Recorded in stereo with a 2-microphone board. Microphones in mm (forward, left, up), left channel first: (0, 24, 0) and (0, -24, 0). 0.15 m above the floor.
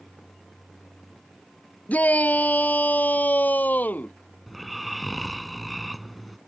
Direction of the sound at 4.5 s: Centre (ahead or behind).